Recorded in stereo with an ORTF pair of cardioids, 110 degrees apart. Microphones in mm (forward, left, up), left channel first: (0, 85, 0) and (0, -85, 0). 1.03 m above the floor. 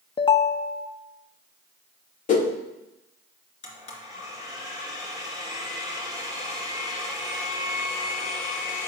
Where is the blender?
45° left, 2.5 m.